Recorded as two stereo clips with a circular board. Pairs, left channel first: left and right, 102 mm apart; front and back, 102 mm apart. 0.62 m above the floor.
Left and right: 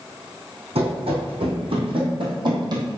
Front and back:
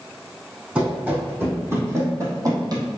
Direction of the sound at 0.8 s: 105° right.